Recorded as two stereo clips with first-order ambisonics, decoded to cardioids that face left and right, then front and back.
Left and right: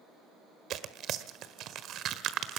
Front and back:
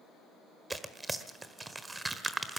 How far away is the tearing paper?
About 1.4 m.